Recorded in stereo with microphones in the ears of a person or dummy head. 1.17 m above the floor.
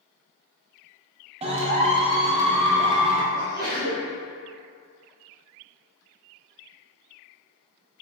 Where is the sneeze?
75° right (ahead or behind), 0.9 m.